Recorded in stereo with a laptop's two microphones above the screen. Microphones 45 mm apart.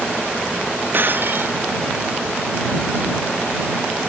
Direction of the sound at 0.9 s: 45° right (ahead or behind).